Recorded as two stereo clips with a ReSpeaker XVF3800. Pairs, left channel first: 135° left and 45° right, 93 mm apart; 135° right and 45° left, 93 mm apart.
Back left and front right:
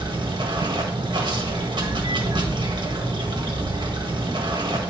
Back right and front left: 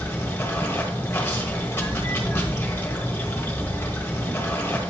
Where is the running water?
70° right, 1.5 m.